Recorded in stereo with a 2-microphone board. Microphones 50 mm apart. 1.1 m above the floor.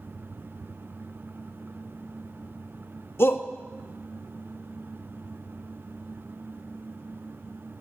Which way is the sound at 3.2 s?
50° left (ahead or behind).